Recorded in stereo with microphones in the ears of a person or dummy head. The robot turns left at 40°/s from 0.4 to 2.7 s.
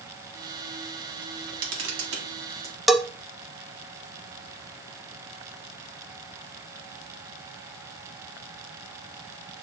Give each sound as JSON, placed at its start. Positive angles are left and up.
{"t": 1.2, "sound": "a camera shutter", "azimuth_deg": -70, "distance_m": 2.0}
{"t": 2.9, "sound": "a bell", "side_deg": -5, "distance_m": 0.6}